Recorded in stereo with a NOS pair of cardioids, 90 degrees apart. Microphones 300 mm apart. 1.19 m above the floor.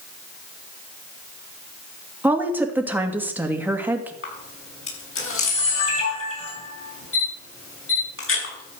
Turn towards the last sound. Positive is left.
turn(degrees=45)